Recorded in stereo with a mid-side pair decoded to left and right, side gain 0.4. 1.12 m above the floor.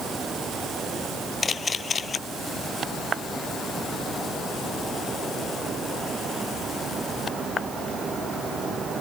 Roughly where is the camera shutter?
Ahead left.